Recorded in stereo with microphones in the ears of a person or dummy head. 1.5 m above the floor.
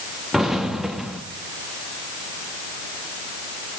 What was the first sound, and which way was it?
An explosion, 5° left (ahead or behind).